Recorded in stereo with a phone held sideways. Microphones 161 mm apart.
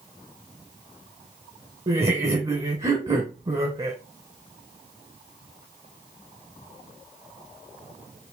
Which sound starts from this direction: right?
Laughter, at 1.9 s.